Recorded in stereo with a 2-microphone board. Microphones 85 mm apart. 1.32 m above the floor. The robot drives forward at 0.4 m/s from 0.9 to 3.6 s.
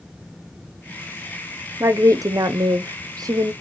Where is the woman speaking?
35° right (ahead or behind), 0.6 m; by 3.5 s 40° right (ahead or behind), 0.6 m.